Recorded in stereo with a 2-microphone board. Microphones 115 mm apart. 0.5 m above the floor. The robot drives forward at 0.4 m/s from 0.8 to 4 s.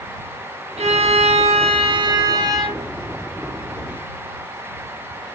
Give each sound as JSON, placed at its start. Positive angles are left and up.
{"t": 0.8, "sound": "a violin", "side_deg": -80, "distance_m": 0.5}